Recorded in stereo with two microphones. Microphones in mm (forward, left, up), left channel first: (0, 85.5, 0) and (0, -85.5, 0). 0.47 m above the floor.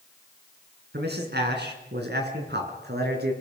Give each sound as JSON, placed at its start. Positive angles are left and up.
{"t": 0.9, "sound": "a man speaking", "side_deg": -75, "distance_m": 6.5}